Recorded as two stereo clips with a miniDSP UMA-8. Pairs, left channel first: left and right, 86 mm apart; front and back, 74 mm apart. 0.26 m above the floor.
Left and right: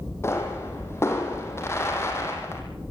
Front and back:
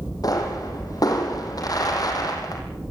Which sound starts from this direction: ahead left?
A pop, at 0.2 s.